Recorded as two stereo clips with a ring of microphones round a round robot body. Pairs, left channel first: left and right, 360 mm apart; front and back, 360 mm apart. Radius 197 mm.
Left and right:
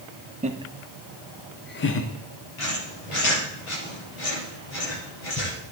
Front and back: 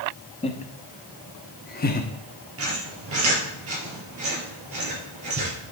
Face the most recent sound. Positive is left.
turn(degrees=130)